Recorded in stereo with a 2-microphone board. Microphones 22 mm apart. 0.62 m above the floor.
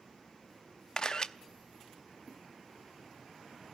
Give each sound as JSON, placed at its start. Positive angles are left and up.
{"t": 1.0, "sound": "a camera shutter", "side_deg": 30, "distance_m": 0.7}